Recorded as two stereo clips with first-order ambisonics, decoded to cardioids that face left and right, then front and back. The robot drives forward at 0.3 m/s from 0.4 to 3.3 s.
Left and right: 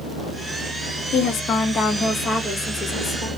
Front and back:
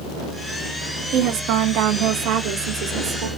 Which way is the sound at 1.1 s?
145° left.